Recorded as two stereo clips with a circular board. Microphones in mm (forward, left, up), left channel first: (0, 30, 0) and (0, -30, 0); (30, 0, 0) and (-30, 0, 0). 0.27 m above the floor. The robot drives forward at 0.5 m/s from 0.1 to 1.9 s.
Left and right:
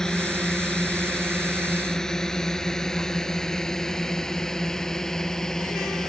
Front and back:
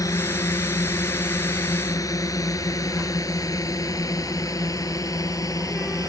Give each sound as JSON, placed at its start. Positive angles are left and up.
{"t": 0.0, "sound": "a drone", "azimuth_deg": 10}